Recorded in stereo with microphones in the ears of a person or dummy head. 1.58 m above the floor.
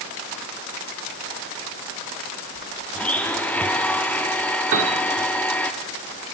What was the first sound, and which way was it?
A blender, 5° left (ahead or behind).